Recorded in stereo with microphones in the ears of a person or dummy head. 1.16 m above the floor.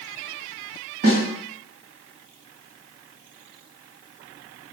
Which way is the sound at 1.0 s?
45° right (ahead or behind).